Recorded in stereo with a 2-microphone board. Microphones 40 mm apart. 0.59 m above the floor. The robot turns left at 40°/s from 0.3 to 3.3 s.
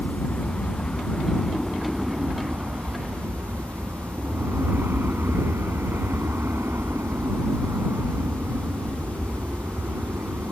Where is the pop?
I don't hear a pop.